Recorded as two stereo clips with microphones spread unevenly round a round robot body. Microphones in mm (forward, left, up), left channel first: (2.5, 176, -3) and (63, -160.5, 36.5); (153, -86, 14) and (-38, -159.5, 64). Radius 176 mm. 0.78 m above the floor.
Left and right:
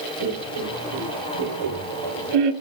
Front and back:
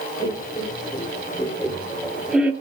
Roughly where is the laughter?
Ahead right.